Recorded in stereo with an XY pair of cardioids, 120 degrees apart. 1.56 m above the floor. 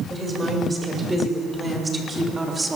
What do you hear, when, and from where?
0.1 s a woman speaking: 15° right, 7 m